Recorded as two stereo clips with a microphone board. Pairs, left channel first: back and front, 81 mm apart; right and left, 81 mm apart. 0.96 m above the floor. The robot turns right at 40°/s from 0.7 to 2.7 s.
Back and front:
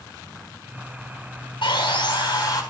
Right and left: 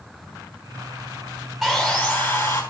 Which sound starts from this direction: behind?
Sawing, at 1.6 s.